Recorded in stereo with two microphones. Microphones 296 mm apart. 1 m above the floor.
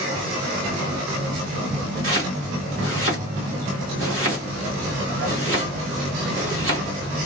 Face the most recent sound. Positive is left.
turn(degrees=-50)  # may be behind; listen again after turning